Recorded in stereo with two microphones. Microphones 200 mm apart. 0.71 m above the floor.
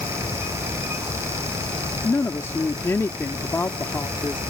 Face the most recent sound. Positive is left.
turn(degrees=15)  # may be behind; listen again after turning